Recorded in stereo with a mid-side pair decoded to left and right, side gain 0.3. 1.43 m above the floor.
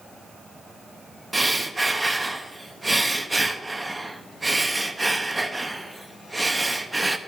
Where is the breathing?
25° right, 0.7 m.